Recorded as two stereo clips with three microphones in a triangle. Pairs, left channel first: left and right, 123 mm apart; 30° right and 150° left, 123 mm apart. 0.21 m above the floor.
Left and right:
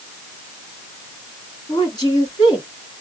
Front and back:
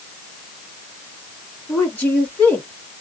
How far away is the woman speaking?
About 2.5 m.